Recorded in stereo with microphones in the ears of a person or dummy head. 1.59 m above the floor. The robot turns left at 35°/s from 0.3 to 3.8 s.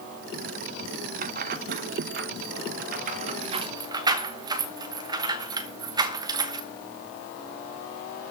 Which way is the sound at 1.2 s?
45° right (ahead or behind).